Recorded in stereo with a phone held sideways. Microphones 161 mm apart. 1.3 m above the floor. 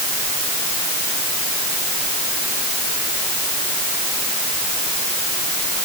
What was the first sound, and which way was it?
Only background noise.